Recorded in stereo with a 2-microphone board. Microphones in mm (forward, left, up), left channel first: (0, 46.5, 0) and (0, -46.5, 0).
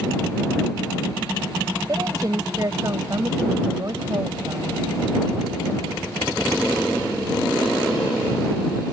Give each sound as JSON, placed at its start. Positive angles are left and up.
{"t": 1.9, "sound": "a woman speaking", "side_deg": -40}